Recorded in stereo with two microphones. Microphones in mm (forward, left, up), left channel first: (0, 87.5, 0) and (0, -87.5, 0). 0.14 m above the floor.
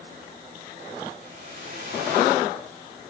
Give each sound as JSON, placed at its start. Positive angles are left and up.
{"t": 1.2, "sound": "a whoosh", "side_deg": -75, "distance_m": 7.5}